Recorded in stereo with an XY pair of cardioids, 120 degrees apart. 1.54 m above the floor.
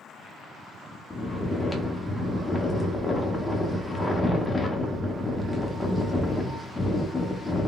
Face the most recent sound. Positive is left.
turn(degrees=15)